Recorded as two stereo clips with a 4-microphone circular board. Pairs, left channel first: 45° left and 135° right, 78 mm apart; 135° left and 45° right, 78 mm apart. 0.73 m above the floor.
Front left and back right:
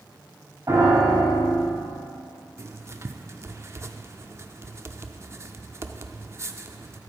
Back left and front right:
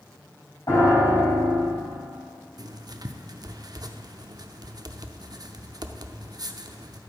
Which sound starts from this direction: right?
Writing, at 2.6 s.